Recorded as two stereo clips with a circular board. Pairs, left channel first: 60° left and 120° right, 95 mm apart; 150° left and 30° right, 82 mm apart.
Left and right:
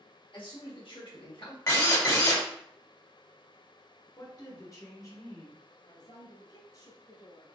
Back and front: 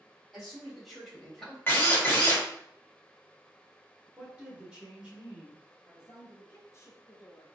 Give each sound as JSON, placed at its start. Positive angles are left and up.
{"t": 0.3, "sound": "a man speaking", "azimuth_deg": 55, "distance_m": 2.5}
{"t": 1.7, "sound": "a drill", "azimuth_deg": 95, "distance_m": 1.5}
{"t": 4.2, "sound": "a woman speaking", "azimuth_deg": 35, "distance_m": 1.3}
{"t": 5.9, "sound": "a woman speaking", "azimuth_deg": 95, "distance_m": 2.0}